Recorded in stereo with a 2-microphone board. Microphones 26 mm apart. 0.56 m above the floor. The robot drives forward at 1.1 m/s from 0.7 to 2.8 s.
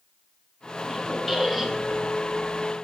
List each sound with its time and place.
0.8 s a squeak: 5° right (ahead or behind), 2.5 m; by 2.0 s 10° right (ahead or behind), 1.2 m